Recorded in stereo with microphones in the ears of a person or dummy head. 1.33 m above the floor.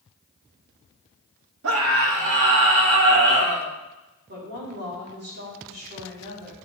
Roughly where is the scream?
Right.